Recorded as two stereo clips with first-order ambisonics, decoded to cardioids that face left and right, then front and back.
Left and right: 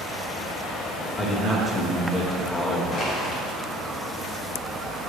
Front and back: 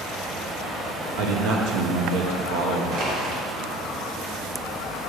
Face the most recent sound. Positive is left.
turn(degrees=145)